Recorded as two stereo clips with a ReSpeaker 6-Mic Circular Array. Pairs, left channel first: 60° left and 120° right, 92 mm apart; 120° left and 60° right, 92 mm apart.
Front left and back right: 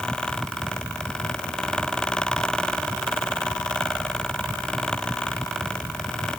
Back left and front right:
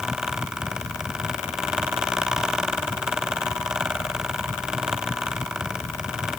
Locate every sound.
Only background noise.